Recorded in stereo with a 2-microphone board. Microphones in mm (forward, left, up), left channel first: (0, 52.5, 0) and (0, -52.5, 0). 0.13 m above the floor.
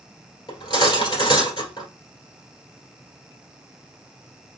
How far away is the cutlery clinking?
About 1.5 m.